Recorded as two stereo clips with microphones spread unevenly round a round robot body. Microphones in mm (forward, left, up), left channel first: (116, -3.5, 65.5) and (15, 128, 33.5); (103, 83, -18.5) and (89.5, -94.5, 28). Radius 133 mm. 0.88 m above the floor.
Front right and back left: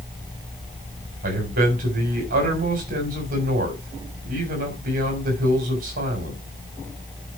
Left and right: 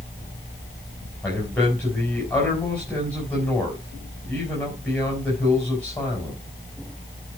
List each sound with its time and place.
1.2 s a man speaking: 170° left, 3.5 m